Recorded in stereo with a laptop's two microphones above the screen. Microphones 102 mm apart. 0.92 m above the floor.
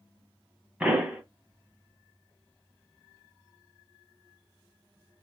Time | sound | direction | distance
0.8 | a pop | 10° right (ahead or behind) | 1.2 m